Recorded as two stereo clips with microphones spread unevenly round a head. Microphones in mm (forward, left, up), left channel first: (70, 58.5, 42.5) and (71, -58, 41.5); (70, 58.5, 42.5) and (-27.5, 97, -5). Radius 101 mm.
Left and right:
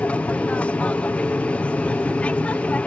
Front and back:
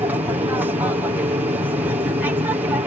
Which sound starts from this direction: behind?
An aircraft, at 0.0 s.